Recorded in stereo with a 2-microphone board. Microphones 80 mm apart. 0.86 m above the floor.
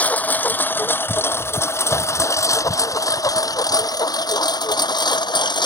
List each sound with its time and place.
0.0 s a lawn mower: 20° left (ahead or behind); by 5.7 s 65° left (ahead or behind)